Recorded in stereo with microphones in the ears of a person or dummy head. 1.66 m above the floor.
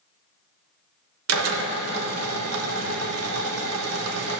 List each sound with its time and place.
1.3 s a drill: 85° right, 1.9 m